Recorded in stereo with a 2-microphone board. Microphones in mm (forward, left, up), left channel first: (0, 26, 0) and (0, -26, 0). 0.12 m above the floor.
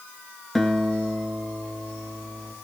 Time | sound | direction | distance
0.6 | a guitar | centre (ahead or behind) | 1.8 m